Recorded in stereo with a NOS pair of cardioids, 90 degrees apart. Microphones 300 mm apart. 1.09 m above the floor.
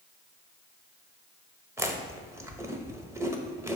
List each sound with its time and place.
1.8 s chewing: 10° right, 0.8 m